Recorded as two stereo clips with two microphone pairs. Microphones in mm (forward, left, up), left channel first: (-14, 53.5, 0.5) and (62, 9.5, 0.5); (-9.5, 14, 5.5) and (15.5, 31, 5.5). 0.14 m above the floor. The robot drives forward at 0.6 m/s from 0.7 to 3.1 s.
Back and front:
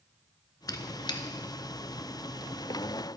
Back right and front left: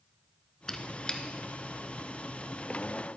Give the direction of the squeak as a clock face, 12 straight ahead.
7 o'clock.